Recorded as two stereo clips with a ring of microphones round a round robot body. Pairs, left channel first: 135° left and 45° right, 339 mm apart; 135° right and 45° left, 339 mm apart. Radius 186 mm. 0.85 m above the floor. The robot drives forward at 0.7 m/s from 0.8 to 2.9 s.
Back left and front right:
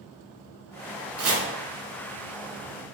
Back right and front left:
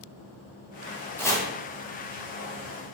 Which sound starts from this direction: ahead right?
Chopping, at 1.2 s.